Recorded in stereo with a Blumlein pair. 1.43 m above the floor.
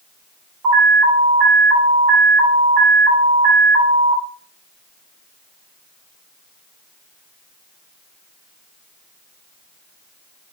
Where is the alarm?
30° right, 4.5 m.